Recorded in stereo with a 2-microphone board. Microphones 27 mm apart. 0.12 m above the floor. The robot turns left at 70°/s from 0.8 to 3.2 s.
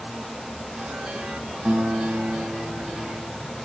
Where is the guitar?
50° right, 7.5 m; by 3.3 s 155° right, 7.5 m.